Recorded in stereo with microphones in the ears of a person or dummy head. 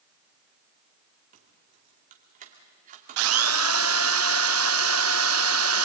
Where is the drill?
70° right (ahead or behind), 0.5 m.